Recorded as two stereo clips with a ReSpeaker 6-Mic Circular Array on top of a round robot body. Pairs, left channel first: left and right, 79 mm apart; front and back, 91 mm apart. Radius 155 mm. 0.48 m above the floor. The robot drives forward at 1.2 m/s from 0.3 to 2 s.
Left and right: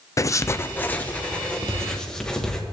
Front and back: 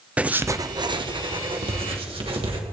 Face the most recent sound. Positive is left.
turn(degrees=170)